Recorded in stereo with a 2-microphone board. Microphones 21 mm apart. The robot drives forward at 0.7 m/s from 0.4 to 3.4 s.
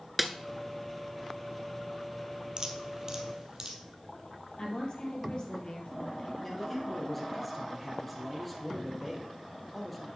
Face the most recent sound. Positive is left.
turn(degrees=0)  # may be behind; listen again after turning